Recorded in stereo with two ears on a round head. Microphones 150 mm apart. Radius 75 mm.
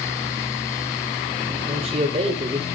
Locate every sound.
1.7 s a man speaking: 35° right (ahead or behind), 1.8 m